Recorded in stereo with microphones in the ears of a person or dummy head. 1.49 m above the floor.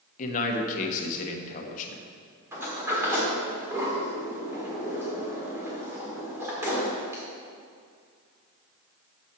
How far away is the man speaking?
About 1.1 m.